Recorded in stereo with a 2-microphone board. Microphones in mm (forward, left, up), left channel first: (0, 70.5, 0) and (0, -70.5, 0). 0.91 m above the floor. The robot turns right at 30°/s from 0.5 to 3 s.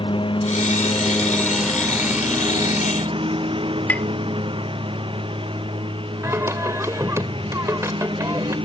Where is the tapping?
10° left (ahead or behind).